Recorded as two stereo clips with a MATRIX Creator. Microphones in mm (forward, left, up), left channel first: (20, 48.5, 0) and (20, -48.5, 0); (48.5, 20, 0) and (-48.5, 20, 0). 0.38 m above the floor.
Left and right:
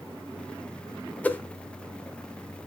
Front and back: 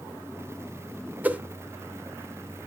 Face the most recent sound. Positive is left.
turn(degrees=135)